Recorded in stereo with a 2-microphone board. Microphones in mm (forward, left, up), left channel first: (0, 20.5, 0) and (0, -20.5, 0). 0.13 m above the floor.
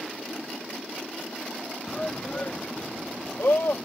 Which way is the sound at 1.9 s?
20° left (ahead or behind).